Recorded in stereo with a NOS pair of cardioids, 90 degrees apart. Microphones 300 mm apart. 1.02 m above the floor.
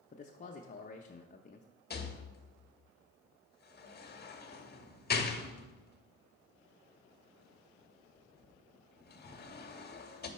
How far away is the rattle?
About 0.9 m.